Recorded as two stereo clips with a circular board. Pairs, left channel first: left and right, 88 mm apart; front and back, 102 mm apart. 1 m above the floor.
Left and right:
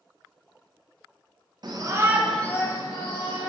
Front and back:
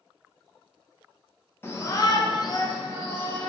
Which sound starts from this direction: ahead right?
A shout, at 1.6 s.